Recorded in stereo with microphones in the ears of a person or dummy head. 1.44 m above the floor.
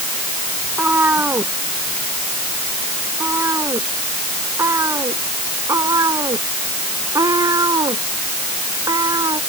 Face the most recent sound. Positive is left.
turn(degrees=-30)  # may be behind; listen again after turning